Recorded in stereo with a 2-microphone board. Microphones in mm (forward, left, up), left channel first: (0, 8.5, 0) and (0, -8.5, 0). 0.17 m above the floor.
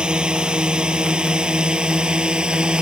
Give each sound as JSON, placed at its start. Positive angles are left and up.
{"t": 0.0, "sound": "a drone", "side_deg": -55}